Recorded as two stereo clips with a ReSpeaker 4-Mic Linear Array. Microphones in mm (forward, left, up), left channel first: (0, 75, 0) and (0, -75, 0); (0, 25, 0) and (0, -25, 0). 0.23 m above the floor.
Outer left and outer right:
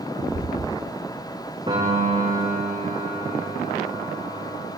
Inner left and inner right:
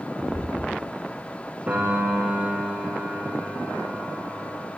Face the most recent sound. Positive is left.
turn(degrees=-30)  # may be behind; listen again after turning